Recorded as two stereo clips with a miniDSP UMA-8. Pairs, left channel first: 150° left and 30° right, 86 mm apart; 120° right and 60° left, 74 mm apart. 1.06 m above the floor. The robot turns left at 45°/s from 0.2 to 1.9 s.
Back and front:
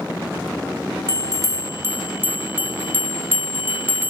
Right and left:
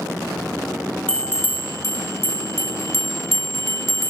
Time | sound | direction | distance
1.1 | a bell | 50° right | ?